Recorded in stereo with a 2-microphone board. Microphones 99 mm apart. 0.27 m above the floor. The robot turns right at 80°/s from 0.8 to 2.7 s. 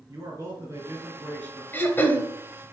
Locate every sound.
0.1 s a man speaking: 30° right, 3.5 m; by 1.6 s 35° left, 3.5 m
1.7 s throat clearing: 25° left (ahead or behind), 1.2 m; by 2.3 s 20° left (ahead or behind), 1.2 m